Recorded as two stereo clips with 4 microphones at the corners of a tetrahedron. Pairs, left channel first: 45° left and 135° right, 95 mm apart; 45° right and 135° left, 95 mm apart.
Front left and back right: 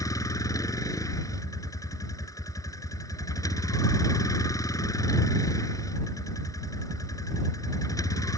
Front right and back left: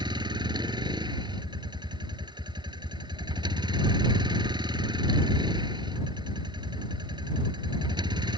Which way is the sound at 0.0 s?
100° left.